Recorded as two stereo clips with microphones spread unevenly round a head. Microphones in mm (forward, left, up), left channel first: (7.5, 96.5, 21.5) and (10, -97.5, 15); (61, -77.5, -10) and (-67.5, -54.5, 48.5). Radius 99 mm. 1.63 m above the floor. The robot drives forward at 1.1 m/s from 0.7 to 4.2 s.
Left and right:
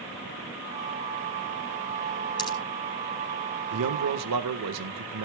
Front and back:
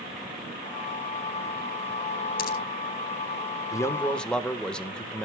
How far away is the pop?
About 5 m.